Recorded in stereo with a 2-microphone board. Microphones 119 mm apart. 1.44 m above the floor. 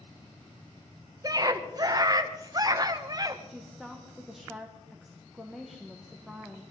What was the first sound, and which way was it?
A scream, 30° right (ahead or behind).